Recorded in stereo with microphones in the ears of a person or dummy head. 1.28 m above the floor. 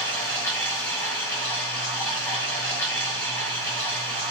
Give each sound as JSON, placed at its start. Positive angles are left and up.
{"t": 0.0, "sound": "running water", "side_deg": 10, "distance_m": 2.5}